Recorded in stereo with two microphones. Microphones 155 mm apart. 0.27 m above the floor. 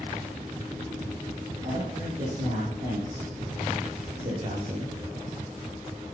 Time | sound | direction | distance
1.6 | a man speaking | 50° right (ahead or behind) | 7.5 m